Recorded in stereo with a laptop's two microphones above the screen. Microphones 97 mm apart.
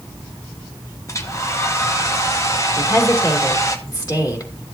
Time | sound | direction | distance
1.1 | a hair dryer | 30° left (ahead or behind) | 0.9 m
2.8 | a woman speaking | 40° left (ahead or behind) | 3 m